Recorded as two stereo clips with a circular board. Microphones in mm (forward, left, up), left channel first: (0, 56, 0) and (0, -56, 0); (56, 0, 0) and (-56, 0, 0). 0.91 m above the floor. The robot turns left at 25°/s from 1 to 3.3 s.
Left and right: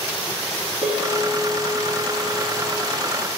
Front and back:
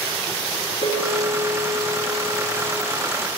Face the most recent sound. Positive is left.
turn(degrees=130)